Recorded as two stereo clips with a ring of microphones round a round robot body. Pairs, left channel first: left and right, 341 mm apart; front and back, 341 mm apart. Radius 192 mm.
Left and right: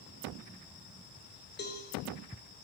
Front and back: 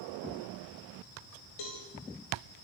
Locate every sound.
1.6 s a cowbell: 30° left, 5.5 m